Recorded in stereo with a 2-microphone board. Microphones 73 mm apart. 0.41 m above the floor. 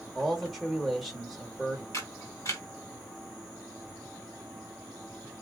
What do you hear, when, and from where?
0.1 s a man speaking: centre (ahead or behind), 1.1 m
1.9 s a camera shutter: 50° left (ahead or behind), 1.6 m